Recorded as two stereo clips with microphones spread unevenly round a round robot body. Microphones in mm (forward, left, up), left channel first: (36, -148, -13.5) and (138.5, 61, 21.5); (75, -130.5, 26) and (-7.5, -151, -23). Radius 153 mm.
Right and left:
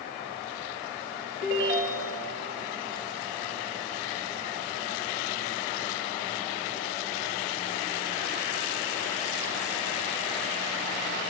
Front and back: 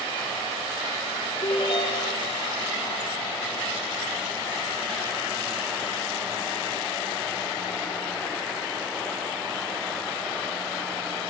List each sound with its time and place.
1.4 s a ringtone: 30° left, 3.5 m